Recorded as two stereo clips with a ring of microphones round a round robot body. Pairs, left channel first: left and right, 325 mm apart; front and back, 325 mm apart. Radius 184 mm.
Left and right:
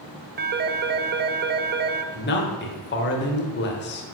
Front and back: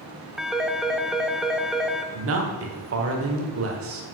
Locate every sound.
0.4 s a phone ringing: 95° right, 0.7 m
2.1 s a man speaking: 140° left, 1.4 m